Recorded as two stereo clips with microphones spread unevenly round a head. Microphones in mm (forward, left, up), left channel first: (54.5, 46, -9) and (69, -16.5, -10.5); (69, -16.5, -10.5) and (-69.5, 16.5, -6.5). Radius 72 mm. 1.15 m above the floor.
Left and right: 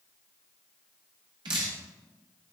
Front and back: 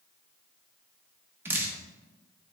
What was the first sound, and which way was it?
Dripping, 115° right.